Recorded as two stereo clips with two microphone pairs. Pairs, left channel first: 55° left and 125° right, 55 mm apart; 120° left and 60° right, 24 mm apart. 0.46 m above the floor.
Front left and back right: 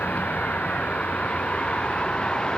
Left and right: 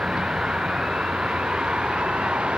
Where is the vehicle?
10° right; by 2.6 s 20° right.